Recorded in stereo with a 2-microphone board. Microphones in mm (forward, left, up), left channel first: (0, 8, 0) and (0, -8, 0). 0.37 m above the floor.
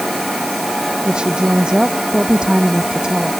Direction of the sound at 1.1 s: 70° right (ahead or behind).